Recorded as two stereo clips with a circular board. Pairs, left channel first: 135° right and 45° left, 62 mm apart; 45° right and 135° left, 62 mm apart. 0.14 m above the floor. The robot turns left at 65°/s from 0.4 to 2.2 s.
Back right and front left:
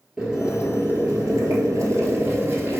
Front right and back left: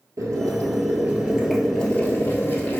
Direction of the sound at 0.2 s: 120° left.